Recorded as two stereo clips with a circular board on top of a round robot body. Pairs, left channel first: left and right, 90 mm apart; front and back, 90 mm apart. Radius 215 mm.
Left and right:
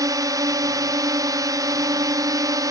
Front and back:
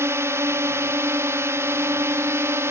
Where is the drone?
130° right.